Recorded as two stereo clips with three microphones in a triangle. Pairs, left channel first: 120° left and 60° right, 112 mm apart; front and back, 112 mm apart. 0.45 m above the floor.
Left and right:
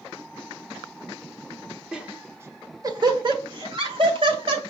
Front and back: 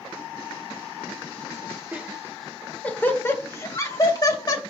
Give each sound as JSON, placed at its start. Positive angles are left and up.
{"t": 1.9, "sound": "laughter", "azimuth_deg": -135, "distance_m": 1.0}